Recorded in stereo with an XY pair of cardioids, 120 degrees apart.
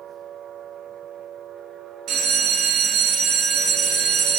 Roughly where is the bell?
Ahead right.